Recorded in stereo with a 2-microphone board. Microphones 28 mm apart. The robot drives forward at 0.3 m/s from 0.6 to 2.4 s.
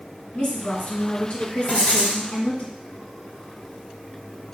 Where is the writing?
55° left (ahead or behind), 2 m.